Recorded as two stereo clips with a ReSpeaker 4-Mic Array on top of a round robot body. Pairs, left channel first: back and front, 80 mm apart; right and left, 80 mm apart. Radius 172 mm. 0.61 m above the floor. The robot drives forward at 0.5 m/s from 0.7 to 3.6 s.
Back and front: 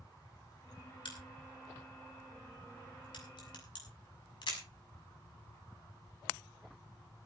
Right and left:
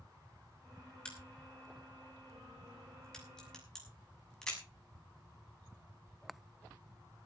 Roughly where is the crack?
Behind.